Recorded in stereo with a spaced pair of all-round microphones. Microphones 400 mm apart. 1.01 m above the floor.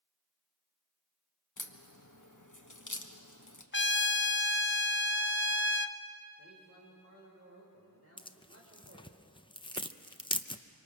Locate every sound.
1.6 s a crack: 55° left (ahead or behind), 1.3 m
3.7 s a trumpet: 30° left (ahead or behind), 0.6 m
6.4 s a man speaking: 40° right (ahead or behind), 4 m
8.2 s tearing paper: 15° left (ahead or behind), 0.6 m